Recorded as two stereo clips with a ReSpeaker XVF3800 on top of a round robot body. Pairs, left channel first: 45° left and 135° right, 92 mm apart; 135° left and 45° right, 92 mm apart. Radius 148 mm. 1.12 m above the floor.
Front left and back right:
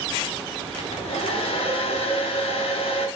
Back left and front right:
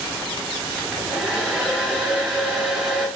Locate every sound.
0.8 s a hair dryer: 40° left, 3.5 m